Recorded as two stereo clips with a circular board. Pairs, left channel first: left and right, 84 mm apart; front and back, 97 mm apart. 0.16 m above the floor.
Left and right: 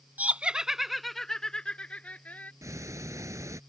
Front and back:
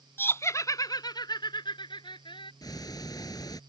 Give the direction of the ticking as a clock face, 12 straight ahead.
1 o'clock.